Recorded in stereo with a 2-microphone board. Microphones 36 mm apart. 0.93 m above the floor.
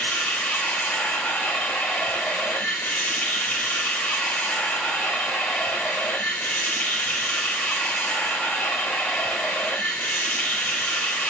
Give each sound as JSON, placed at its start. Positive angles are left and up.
{"t": 0.0, "sound": "running water", "side_deg": 75, "distance_m": 1.8}